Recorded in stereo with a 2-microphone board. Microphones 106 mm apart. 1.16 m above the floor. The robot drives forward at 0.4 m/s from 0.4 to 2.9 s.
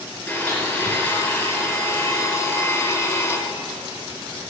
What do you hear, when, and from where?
0.3 s a blender: 20° left (ahead or behind), 2.5 m; by 3.4 s 30° left (ahead or behind), 1.8 m